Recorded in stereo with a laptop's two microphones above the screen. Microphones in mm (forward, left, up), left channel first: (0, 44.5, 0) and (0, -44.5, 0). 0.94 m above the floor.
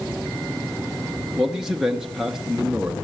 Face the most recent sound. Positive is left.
turn(degrees=-5)  # may be behind; listen again after turning